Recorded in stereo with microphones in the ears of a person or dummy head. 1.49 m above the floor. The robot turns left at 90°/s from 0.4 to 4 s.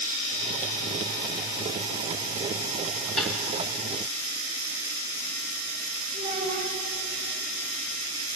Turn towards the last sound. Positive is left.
turn(degrees=-70)  # may be behind; listen again after turning